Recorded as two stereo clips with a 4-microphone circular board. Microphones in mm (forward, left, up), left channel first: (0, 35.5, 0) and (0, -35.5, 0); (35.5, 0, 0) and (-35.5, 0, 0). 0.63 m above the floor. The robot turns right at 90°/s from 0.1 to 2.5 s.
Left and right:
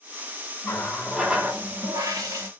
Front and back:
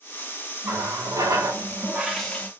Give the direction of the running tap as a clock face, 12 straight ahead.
8 o'clock.